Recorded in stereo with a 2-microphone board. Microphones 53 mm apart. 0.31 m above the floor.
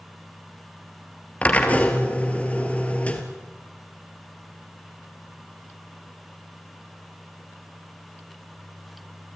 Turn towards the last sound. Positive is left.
turn(degrees=25)  # may be behind; listen again after turning